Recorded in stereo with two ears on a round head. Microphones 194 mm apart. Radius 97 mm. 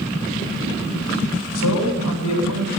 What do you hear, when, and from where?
1.6 s a man speaking: 85° left, 7.5 m